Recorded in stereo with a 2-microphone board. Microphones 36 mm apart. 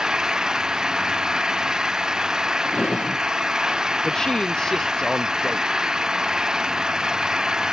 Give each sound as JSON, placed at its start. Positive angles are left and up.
{"t": 0.0, "sound": "an engine running", "side_deg": -20}
{"t": 2.6, "sound": "a drawer", "side_deg": 35}
{"t": 4.0, "sound": "a man speaking", "side_deg": 20}